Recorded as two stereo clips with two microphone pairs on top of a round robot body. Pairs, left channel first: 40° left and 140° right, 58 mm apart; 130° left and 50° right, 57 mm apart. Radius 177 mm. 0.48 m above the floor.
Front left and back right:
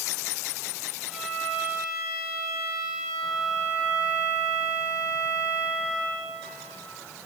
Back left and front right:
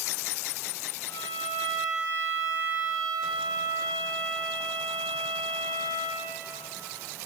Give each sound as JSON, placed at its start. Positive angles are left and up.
{"t": 1.1, "sound": "a violin", "azimuth_deg": 135, "distance_m": 4.0}